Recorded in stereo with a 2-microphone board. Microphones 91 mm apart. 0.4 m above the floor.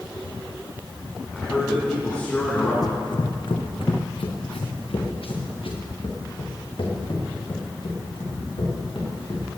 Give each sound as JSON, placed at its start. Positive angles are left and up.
{"t": 1.3, "sound": "a man speaking", "side_deg": 15, "distance_m": 4.0}
{"t": 2.8, "sound": "running footsteps", "side_deg": 45, "distance_m": 1.2}